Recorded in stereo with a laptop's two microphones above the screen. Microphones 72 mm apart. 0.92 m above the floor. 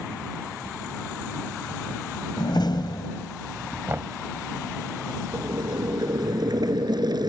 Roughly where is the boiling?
Right.